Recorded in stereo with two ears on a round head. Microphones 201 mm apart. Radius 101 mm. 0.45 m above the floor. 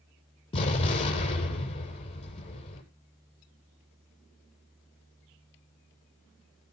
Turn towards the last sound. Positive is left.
turn(degrees=25)  # may be behind; listen again after turning